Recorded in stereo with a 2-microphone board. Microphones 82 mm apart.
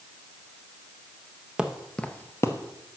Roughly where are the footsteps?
Centre.